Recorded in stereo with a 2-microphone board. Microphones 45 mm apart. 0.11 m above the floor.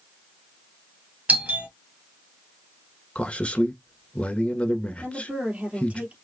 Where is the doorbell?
30° right (ahead or behind), 3 m.